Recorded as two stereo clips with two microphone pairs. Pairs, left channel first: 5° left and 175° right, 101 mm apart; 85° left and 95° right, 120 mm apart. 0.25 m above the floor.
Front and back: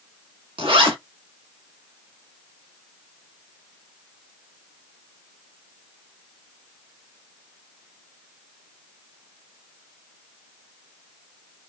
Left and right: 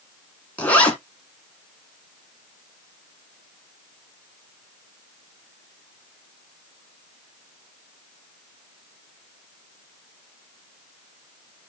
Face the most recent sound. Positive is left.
turn(degrees=160)